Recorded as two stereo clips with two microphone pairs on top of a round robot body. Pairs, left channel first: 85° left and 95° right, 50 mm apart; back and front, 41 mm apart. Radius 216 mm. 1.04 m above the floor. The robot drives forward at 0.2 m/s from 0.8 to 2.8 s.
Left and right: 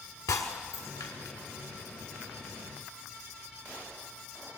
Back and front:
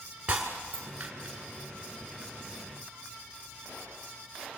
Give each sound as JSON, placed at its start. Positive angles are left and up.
{"t": 0.3, "sound": "breaking glass", "azimuth_deg": 65, "distance_m": 1.5}